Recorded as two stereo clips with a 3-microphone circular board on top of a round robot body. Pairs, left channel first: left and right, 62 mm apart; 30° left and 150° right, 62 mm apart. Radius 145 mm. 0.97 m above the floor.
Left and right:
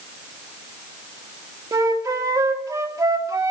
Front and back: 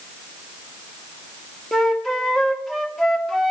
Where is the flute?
60° right, 2 m.